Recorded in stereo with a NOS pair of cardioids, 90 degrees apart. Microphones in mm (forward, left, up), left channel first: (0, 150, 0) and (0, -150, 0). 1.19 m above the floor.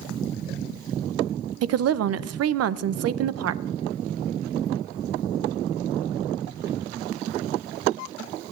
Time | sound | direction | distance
1.6 | a woman speaking | 60° right | 0.6 m